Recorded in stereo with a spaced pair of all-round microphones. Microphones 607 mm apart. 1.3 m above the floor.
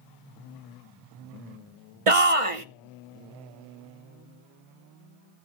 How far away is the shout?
About 0.9 m.